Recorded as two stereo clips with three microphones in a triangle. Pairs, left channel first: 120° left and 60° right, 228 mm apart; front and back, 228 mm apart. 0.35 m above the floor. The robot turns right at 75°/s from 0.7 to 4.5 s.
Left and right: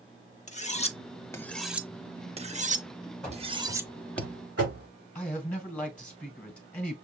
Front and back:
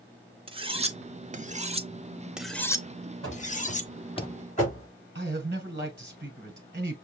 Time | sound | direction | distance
0.5 | cutlery clinking | 140° left | 0.5 m
3.2 | running footsteps | 155° right | 4.5 m
5.2 | a man speaking | 160° right | 1.6 m